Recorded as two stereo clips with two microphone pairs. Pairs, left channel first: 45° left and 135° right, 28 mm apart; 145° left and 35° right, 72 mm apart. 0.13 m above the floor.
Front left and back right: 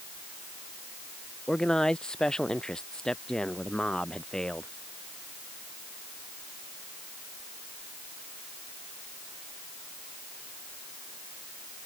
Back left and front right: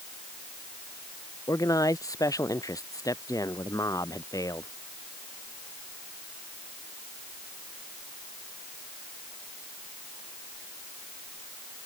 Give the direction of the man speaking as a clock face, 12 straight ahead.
8 o'clock.